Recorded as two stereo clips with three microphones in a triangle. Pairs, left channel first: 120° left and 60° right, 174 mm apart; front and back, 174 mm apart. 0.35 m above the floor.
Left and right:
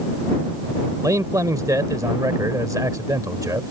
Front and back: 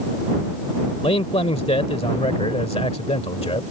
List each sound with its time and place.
1.0 s a man speaking: 5° right